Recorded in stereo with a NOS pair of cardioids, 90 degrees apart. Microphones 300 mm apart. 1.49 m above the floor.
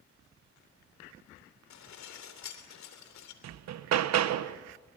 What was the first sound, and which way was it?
Dishes clattering, 70° left.